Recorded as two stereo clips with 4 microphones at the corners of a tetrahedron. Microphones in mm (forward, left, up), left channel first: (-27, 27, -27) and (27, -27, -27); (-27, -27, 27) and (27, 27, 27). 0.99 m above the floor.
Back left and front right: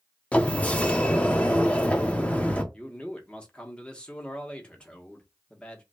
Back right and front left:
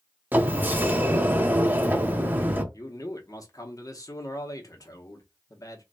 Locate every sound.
0.3 s a sliding door: 80° left, 0.5 m
2.7 s a man speaking: 155° right, 0.8 m